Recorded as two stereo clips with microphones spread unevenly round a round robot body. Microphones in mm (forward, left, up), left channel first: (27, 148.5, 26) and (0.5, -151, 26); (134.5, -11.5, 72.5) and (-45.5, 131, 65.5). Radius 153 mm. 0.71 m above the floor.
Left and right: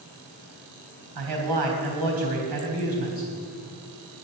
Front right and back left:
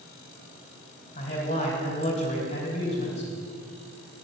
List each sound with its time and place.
1.1 s a man speaking: 105° right, 3.5 m